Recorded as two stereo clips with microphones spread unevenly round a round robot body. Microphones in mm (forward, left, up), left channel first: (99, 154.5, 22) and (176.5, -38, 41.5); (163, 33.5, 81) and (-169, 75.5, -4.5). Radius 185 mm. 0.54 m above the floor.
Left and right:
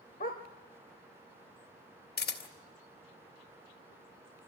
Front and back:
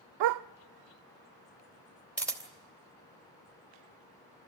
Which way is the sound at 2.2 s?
85° left.